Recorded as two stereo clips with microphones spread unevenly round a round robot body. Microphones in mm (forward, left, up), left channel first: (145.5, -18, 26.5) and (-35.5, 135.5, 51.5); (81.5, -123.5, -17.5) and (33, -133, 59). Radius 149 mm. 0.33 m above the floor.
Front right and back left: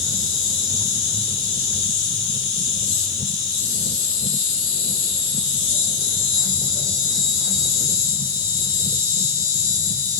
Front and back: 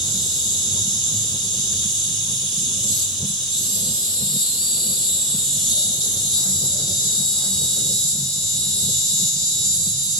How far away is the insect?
About 3 m.